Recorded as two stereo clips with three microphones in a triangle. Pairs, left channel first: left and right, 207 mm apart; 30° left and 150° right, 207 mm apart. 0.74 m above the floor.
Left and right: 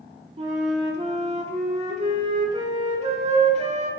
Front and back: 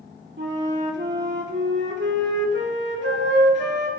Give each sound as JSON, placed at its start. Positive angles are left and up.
{"t": 0.4, "sound": "a flute", "azimuth_deg": -145, "distance_m": 2.0}